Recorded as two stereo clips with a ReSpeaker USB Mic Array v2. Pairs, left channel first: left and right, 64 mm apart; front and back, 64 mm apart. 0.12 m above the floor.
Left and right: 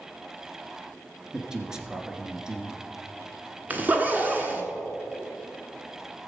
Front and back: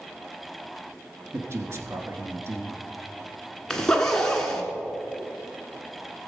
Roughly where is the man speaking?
Behind.